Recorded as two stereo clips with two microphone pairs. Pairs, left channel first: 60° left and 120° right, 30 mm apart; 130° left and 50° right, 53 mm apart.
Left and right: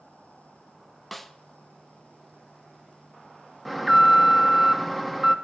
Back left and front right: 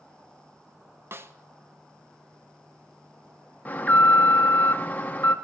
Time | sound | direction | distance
1.1 | a snare drum | 25° right | 0.6 m
3.6 | an alarm | 160° left | 0.8 m